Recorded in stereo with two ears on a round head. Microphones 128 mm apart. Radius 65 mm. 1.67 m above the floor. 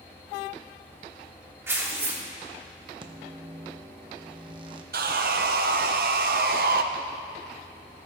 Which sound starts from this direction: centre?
Tearing paper, at 1.7 s.